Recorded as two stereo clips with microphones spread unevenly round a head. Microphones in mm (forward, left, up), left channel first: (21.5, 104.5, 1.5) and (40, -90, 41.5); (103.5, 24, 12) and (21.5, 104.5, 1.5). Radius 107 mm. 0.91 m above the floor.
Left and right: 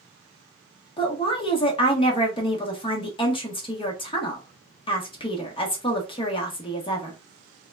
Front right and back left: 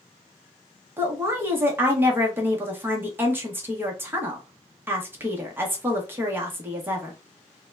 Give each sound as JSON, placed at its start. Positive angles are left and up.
{"t": 1.0, "sound": "a woman speaking", "azimuth_deg": 85, "distance_m": 1.0}